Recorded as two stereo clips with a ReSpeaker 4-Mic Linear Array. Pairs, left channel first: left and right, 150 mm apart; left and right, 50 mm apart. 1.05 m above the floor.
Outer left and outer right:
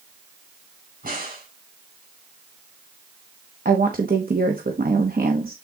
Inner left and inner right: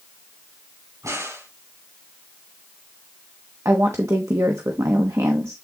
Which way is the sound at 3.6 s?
75° right (ahead or behind).